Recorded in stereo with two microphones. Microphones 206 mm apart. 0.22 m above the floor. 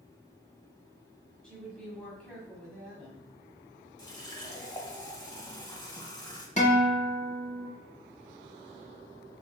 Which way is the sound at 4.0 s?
20° left (ahead or behind).